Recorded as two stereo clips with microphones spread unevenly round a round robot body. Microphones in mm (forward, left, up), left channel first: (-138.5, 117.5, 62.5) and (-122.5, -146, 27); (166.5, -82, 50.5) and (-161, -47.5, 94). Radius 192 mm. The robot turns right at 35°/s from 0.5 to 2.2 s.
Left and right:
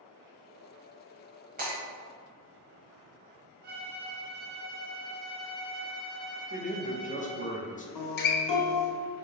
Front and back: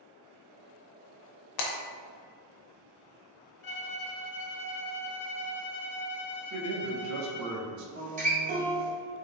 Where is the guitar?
100° left, 0.8 m.